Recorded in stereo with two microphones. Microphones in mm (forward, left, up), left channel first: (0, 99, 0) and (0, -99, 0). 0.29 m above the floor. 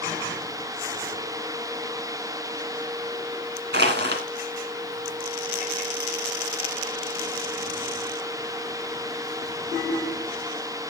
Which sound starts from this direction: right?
Crushing, at 3.7 s.